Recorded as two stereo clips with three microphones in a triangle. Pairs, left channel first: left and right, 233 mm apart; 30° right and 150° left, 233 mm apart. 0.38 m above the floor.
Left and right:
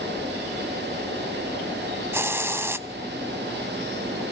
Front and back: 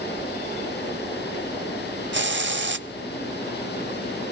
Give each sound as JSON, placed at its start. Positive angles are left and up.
{"t": 2.1, "sound": "a hiss", "azimuth_deg": -170, "distance_m": 0.5}